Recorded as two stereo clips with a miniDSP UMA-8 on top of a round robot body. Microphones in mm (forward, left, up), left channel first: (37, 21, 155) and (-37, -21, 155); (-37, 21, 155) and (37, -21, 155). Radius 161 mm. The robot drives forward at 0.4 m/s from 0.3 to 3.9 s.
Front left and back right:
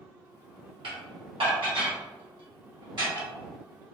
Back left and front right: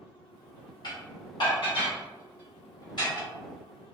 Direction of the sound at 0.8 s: 170° right.